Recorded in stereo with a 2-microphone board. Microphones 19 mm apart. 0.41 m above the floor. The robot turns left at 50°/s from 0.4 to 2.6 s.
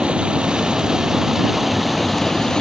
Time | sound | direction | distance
0.0 | running water | 110° right | ?